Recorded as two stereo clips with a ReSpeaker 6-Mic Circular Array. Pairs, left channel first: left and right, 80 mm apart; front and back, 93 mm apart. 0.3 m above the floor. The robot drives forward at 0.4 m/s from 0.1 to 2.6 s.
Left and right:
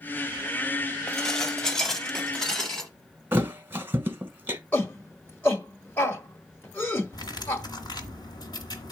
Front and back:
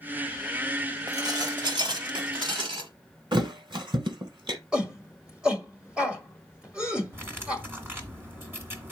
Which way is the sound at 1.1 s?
170° left.